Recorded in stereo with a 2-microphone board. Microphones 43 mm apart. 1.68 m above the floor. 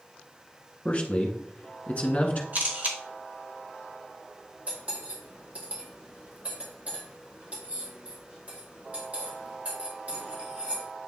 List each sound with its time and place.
0.8 s a man speaking: 30° left (ahead or behind), 1.3 m
2.5 s a camera shutter: 40° right (ahead or behind), 1.4 m
4.7 s cutlery clinking: 30° right (ahead or behind), 2.5 m